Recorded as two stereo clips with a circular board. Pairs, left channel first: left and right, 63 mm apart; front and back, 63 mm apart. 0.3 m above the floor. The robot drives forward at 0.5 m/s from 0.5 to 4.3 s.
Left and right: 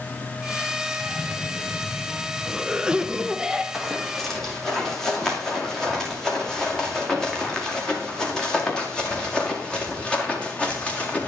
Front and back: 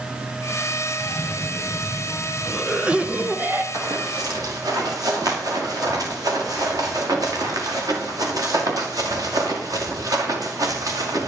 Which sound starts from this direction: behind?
Running footsteps, at 3.7 s.